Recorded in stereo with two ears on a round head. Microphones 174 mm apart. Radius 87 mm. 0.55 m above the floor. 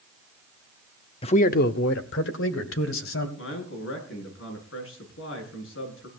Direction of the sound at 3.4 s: 75° left (ahead or behind).